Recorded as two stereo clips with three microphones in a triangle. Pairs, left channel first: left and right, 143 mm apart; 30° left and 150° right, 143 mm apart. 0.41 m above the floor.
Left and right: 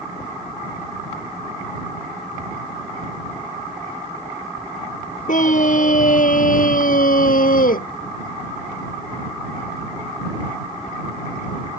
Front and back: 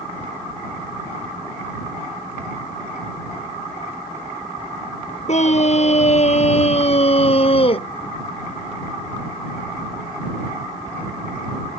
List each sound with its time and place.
5.3 s a scream: 65° left; by 7.9 s 80° left